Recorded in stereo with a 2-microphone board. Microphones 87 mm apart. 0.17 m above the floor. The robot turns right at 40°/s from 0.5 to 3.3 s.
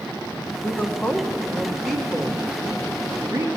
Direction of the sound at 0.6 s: 20° left (ahead or behind).